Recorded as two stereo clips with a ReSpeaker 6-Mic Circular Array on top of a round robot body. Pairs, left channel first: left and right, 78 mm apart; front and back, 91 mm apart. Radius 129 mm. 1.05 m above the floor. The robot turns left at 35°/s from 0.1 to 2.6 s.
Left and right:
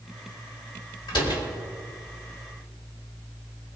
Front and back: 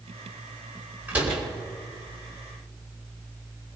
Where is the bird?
I don't hear a bird.